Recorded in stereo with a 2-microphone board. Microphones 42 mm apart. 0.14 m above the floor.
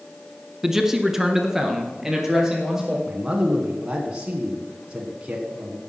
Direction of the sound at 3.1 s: 20° right (ahead or behind).